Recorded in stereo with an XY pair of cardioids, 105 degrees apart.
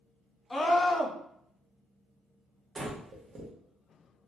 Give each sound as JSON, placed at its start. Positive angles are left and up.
{"t": 0.5, "sound": "a scream", "azimuth_deg": 20, "distance_m": 0.6}
{"t": 2.8, "sound": "breathing", "azimuth_deg": -40, "distance_m": 1.0}